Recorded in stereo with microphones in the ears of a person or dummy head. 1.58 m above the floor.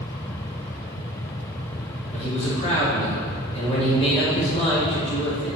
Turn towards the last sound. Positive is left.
turn(degrees=35)  # may be behind; listen again after turning